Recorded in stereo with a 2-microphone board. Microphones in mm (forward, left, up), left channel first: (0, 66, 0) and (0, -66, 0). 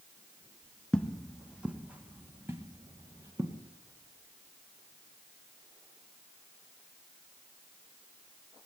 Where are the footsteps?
10° left (ahead or behind), 1.2 m; by 3.6 s 25° right (ahead or behind), 2.5 m.